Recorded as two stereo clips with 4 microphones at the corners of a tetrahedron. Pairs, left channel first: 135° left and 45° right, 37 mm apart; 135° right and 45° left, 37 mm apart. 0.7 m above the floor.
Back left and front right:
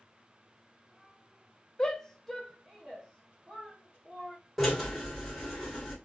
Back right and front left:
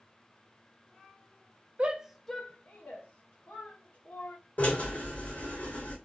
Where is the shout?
75° left, 0.6 m; by 4.4 s 125° right, 2.0 m.